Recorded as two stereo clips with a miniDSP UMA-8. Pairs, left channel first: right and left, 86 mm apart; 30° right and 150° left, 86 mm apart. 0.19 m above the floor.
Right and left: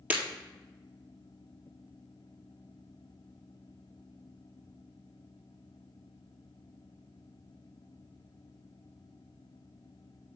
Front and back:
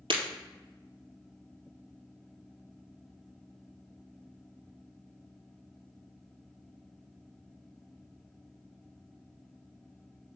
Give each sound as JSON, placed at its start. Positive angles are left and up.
{"t": 0.1, "sound": "breaking glass", "azimuth_deg": 160, "distance_m": 1.7}